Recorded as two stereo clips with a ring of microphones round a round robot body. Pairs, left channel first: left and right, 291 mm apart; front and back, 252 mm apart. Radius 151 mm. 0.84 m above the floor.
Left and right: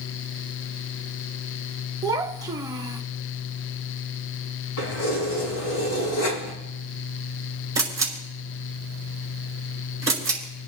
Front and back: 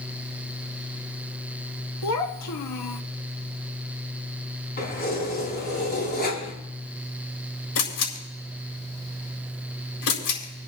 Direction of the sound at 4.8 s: 50° left.